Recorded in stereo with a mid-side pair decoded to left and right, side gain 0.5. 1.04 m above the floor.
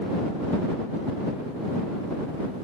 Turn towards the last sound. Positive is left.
No sound to turn to.